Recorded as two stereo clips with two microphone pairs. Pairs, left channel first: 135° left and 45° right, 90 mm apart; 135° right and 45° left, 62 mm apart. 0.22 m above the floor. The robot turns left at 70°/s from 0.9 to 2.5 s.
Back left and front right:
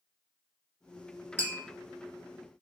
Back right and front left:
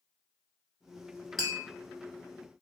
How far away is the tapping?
About 1.6 m.